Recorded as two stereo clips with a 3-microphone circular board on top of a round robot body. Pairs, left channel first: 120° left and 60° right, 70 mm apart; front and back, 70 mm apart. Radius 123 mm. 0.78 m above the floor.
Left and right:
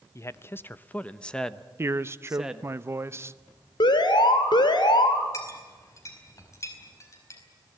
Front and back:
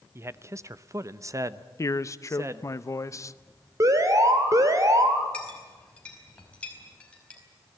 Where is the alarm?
135° left, 2.5 m.